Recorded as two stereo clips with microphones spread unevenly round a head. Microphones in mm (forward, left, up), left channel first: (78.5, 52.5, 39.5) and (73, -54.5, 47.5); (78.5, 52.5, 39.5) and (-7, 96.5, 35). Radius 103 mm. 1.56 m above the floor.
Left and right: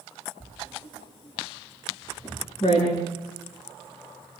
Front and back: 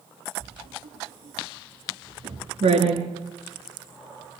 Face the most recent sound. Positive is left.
turn(degrees=140)